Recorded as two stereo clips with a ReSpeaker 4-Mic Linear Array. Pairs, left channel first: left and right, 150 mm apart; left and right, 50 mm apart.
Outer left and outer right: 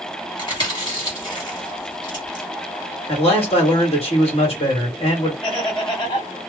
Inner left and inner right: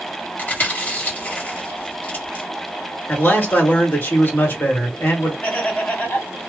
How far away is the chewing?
About 1.6 m.